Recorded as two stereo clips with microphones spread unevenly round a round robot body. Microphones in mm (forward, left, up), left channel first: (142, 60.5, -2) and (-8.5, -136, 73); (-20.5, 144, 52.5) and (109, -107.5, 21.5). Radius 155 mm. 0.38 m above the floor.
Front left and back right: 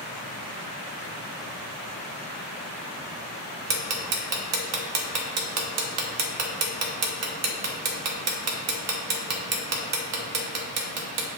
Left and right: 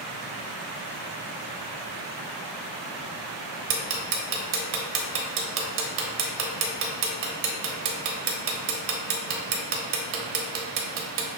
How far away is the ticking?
About 0.9 m.